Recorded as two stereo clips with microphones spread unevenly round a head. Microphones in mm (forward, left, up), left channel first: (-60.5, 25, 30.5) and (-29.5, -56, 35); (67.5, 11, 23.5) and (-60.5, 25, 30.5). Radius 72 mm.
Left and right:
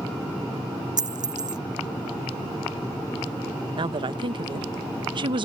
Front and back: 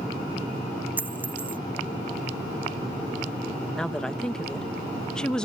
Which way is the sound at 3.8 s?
90° right.